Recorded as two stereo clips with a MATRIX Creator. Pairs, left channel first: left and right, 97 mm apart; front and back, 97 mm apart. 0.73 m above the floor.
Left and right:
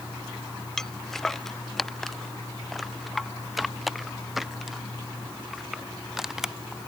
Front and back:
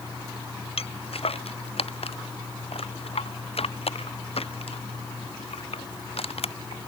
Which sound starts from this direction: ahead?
Footsteps, at 0.8 s.